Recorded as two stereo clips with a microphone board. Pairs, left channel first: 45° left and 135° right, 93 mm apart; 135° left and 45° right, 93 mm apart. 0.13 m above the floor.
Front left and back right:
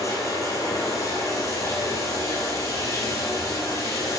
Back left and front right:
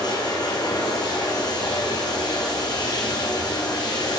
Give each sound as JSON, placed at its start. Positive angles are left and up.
{"t": 0.0, "sound": "running water", "azimuth_deg": 95, "distance_m": 1.8}